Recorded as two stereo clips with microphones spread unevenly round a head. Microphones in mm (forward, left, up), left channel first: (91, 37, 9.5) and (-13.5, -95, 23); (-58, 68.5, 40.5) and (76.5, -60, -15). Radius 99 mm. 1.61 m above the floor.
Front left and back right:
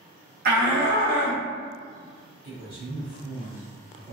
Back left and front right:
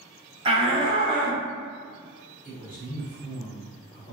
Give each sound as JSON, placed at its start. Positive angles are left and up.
{"t": 0.5, "sound": "a shout", "azimuth_deg": -115, "distance_m": 0.9}
{"t": 2.4, "sound": "a man speaking", "azimuth_deg": -170, "distance_m": 0.9}